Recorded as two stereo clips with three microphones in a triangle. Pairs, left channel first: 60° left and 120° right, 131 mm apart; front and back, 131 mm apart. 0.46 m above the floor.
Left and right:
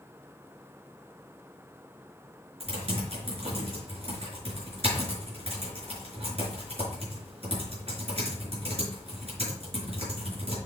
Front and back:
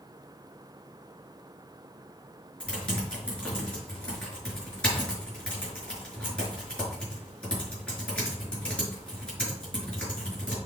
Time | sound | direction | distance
2.6 | typing on a keyboard | 80° right | 5 m